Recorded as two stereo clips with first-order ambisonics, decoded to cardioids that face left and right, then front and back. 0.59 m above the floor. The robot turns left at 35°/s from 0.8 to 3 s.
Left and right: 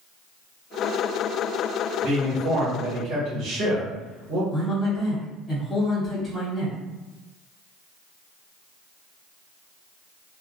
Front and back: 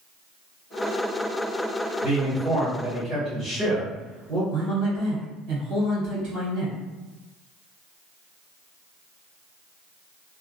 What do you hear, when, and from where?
2.0 s a man speaking: 75° right, 1.3 m; by 4.4 s 110° right, 1.3 m
4.5 s a man speaking: 150° left, 1.6 m